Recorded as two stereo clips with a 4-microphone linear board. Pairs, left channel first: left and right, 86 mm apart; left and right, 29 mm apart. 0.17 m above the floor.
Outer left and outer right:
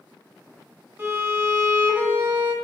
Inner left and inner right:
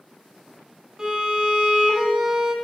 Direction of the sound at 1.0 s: 25° right (ahead or behind).